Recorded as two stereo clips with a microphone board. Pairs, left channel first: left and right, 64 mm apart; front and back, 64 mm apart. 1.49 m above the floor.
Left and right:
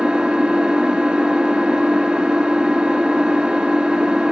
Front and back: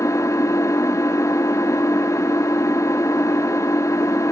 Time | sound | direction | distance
0.0 | an engine running | 20° right | 1.4 m